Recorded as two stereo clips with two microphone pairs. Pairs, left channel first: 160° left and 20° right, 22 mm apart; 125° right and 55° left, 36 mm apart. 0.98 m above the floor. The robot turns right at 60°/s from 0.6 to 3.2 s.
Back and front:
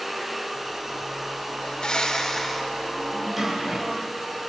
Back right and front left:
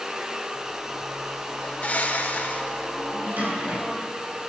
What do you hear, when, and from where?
1.6 s a bird: 170° right, 0.9 m; by 2.9 s 95° right, 0.9 m
3.1 s a drawer: 65° left, 4 m; by 4.2 s 70° left, 4 m